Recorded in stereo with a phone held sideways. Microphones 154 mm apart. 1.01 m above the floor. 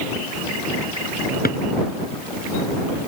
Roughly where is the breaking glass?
I don't hear breaking glass.